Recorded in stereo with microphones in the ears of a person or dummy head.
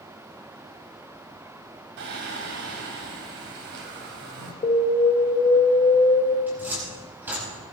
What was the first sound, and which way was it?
Singing, 60° right (ahead or behind).